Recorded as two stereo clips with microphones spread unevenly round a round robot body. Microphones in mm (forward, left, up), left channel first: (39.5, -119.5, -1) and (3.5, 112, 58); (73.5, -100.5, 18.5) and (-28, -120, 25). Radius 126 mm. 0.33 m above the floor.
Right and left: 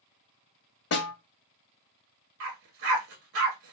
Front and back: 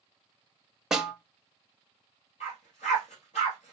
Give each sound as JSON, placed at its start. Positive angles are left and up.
{"t": 0.9, "sound": "a snare drum", "azimuth_deg": -80, "distance_m": 1.1}
{"t": 2.4, "sound": "a dog barking", "azimuth_deg": 70, "distance_m": 1.6}